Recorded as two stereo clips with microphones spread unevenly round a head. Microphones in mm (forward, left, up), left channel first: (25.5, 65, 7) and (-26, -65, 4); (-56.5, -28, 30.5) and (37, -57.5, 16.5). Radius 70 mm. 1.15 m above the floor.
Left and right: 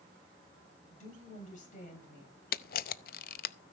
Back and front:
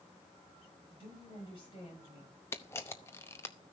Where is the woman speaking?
110° left, 8 m; by 2.4 s 105° left, 8.5 m.